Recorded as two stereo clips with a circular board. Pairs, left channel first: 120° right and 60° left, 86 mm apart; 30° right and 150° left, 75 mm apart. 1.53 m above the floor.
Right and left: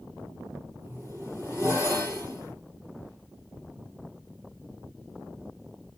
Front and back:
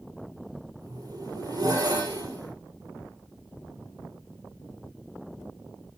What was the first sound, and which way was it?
A zipper, 120° left.